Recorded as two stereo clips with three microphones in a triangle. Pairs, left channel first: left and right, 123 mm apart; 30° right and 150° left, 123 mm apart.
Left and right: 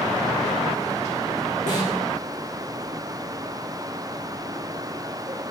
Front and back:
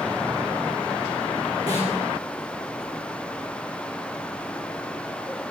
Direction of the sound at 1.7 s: 90° left.